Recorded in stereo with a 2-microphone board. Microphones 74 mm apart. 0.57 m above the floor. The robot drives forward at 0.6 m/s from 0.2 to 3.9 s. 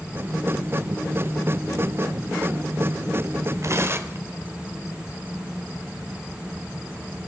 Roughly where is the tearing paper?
Right.